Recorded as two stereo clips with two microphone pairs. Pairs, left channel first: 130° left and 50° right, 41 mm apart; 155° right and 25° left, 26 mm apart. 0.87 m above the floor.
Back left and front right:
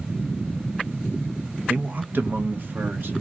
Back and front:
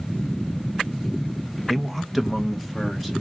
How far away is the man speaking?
About 0.6 m.